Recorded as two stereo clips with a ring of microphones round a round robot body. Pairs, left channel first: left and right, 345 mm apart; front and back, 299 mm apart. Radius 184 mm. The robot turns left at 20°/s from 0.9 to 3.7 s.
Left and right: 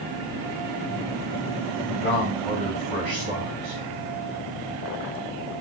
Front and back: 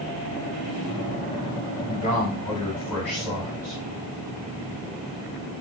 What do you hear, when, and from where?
1.9 s a man speaking: 65° right, 3.5 m; by 3.8 s 100° right, 3.5 m